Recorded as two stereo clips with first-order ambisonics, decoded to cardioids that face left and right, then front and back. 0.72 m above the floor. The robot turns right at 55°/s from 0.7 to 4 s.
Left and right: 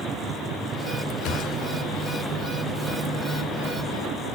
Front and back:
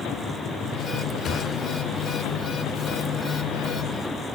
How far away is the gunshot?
About 2.5 m.